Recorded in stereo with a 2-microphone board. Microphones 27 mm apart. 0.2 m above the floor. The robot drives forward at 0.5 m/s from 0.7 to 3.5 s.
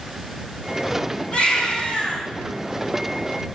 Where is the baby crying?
35° left (ahead or behind), 5.5 m.